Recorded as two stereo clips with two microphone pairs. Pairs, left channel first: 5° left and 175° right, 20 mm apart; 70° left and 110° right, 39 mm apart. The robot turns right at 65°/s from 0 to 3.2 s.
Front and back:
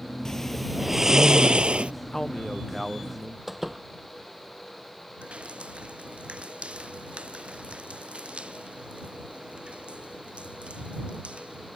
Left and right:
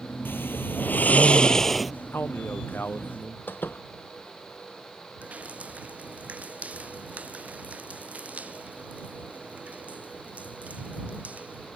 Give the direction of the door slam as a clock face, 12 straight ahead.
9 o'clock.